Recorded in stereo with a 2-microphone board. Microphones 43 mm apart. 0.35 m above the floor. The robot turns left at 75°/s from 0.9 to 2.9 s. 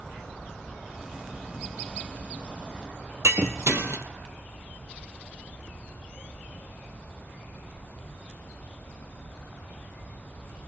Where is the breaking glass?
90° right, 2.5 m.